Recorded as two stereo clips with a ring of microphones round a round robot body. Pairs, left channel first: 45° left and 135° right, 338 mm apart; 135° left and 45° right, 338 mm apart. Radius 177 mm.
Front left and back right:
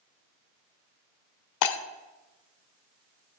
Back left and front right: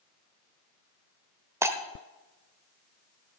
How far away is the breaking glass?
About 0.9 m.